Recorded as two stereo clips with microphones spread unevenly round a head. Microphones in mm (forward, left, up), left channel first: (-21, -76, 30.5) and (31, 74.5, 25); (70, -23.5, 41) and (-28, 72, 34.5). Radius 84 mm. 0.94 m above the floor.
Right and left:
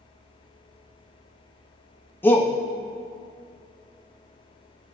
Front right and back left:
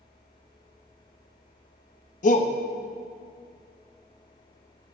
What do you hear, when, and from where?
2.2 s a shout: 30° right, 1.2 m